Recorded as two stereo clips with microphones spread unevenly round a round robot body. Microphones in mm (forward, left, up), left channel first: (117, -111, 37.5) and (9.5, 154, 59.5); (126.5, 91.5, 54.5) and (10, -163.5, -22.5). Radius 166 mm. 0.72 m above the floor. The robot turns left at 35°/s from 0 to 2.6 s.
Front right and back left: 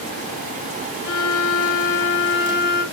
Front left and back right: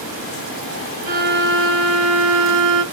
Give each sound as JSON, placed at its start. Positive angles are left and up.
{"t": 1.1, "sound": "a violin", "azimuth_deg": -45, "distance_m": 0.6}